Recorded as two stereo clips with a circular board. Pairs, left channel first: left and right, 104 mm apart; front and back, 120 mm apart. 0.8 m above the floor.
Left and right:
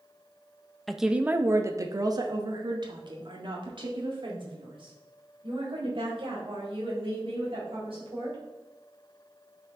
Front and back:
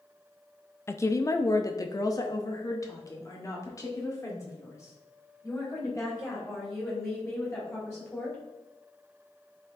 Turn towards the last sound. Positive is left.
turn(degrees=-65)